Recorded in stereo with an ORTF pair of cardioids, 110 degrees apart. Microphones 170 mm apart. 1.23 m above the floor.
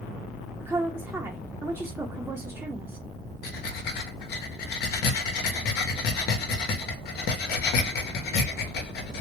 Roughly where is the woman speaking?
Ahead.